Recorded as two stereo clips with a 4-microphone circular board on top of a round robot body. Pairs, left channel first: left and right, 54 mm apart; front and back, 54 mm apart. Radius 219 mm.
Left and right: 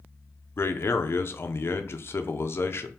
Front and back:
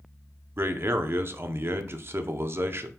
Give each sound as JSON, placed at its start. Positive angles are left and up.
{"t": 0.6, "sound": "a man speaking", "azimuth_deg": 135, "distance_m": 0.6}